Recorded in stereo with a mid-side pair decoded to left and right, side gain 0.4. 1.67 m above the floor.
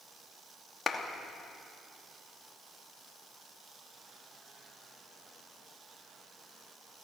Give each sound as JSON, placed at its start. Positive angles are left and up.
{"t": 0.9, "sound": "a clap", "azimuth_deg": 40, "distance_m": 2.5}